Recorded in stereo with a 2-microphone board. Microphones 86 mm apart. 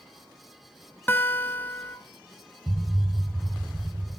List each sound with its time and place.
1.1 s a guitar: 25° left (ahead or behind), 0.9 m
2.7 s an explosion: 5° right (ahead or behind), 1.4 m